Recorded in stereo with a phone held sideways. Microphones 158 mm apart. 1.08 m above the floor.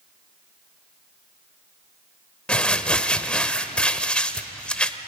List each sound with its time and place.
2.5 s crumpling: 5° left (ahead or behind), 1.0 m